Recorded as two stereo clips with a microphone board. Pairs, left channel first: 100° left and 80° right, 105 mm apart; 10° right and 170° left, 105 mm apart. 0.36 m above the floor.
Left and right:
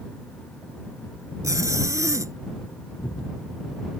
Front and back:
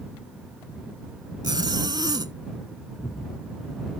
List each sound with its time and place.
1.4 s a zipper: 140° right
3.0 s breathing: 40° left